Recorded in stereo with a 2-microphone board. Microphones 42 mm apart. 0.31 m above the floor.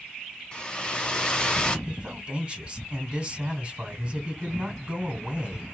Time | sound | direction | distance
0.5 | a hair dryer | 20° left (ahead or behind) | 1.0 m
1.9 | a man speaking | 25° right (ahead or behind) | 1.9 m